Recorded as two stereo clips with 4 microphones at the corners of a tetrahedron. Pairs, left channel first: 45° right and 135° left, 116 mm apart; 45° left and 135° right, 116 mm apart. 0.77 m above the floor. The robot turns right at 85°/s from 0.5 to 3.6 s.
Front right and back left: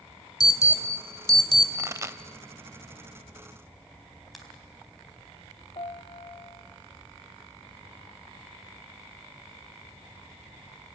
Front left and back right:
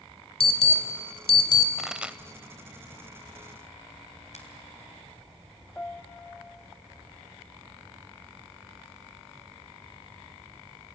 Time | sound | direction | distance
0.4 | an alarm | 10° left | 2 m
1.8 | a pop | 135° left | 0.6 m
4.3 | a finger snap | 45° left | 3.5 m
5.8 | a piano | 30° right | 0.9 m